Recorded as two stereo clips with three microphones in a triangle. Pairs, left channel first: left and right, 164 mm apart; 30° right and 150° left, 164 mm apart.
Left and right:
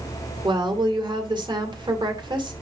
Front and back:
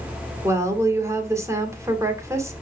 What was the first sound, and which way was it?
A woman speaking, 140° right.